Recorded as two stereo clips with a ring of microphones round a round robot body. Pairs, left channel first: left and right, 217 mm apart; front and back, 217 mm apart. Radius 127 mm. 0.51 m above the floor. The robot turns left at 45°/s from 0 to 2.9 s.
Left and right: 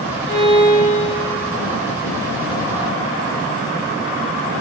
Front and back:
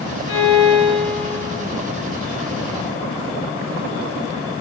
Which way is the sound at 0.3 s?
15° right.